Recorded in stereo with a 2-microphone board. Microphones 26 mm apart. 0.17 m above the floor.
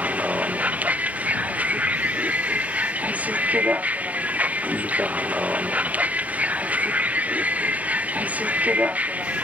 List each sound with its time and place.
0.0 s a vehicle: 85° right